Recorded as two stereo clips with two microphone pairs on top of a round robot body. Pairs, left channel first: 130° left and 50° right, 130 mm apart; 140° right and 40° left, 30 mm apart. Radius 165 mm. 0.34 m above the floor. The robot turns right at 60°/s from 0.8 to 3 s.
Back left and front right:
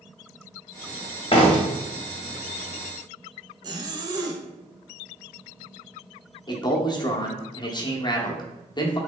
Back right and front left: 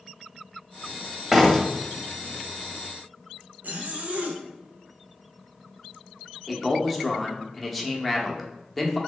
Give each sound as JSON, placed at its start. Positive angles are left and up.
{"t": 1.3, "sound": "a door slam", "azimuth_deg": 130, "distance_m": 1.0}
{"t": 3.6, "sound": "a zipper", "azimuth_deg": 10, "distance_m": 0.5}
{"t": 6.5, "sound": "a man speaking", "azimuth_deg": 140, "distance_m": 0.9}